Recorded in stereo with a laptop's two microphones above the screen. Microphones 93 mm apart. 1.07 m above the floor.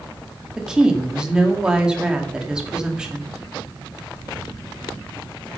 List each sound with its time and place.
0.6 s a woman speaking: 10° right (ahead or behind), 1.8 m